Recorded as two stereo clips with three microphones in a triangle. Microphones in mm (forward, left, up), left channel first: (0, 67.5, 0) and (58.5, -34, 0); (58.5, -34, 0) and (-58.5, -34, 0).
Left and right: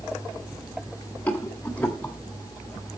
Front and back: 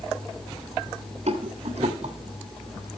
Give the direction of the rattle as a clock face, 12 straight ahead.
5 o'clock.